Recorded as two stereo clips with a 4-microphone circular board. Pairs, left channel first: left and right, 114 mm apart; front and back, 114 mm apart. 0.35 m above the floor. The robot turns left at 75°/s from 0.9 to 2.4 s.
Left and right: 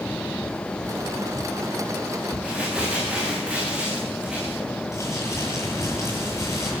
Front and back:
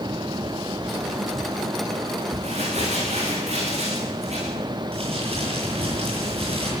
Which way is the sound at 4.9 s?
155° left.